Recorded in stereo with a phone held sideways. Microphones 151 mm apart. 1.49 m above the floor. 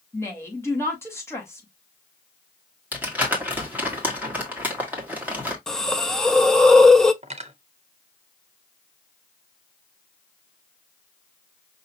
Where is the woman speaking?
15° left (ahead or behind), 2.0 m.